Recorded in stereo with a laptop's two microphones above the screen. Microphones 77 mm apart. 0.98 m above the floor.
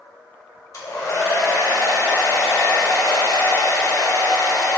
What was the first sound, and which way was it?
A hair dryer, 40° left (ahead or behind).